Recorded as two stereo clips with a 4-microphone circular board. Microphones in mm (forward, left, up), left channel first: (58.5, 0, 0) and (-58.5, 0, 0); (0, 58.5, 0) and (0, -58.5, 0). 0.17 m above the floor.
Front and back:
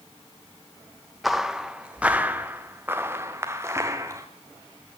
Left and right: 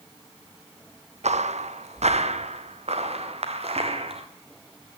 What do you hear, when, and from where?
1.2 s footsteps: 90° right, 1.3 m; by 4.3 s 115° right, 3 m